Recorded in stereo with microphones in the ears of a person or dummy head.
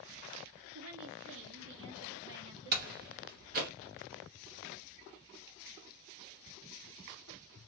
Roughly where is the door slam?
Right.